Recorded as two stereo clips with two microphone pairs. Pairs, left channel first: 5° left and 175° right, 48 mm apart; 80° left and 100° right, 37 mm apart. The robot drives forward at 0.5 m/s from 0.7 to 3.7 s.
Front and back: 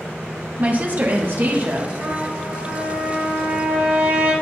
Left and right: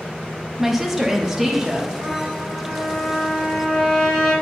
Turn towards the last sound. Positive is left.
turn(degrees=160)